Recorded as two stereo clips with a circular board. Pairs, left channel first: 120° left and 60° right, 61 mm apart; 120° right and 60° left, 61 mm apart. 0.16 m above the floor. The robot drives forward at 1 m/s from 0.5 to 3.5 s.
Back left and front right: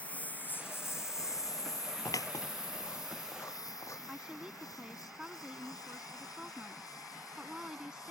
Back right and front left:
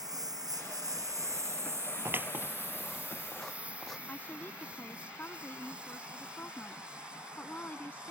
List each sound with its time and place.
0.0 s a lawn mower: 50° left; by 8.1 s 135° left
2.0 s scissors: 105° left; by 4.0 s 155° left
4.1 s a woman speaking: 125° right